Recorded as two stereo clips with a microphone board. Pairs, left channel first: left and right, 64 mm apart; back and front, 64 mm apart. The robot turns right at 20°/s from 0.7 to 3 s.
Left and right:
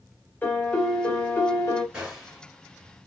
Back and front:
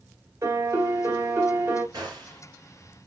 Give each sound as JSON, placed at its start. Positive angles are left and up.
{"t": 0.4, "sound": "a piano", "azimuth_deg": 30, "distance_m": 1.6}
{"t": 1.9, "sound": "a gunshot", "azimuth_deg": -20, "distance_m": 2.5}